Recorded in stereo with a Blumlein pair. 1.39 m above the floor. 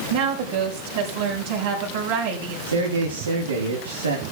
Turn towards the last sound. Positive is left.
turn(degrees=-70)